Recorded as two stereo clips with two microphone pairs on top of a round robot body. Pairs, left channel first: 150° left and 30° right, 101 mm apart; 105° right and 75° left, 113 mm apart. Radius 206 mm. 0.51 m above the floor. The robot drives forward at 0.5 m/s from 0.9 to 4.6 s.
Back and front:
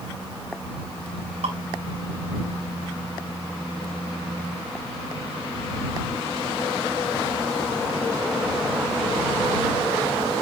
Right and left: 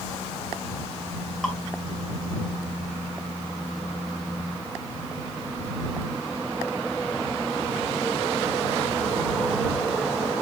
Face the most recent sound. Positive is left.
turn(degrees=-40)